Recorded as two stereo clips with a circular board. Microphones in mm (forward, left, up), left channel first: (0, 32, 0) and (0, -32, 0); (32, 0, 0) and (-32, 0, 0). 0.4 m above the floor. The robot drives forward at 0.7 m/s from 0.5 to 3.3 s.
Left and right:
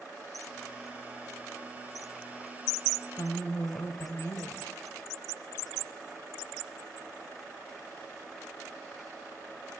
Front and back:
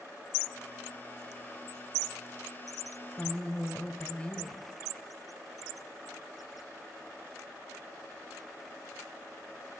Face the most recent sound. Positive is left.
turn(degrees=65)